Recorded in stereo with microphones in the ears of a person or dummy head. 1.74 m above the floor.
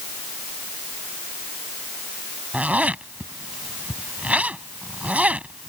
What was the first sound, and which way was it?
A zipper, 5° right (ahead or behind).